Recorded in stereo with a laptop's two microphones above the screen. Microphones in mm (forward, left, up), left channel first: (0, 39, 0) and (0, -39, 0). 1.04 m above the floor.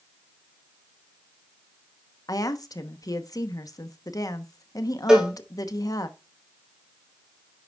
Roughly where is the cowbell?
Centre.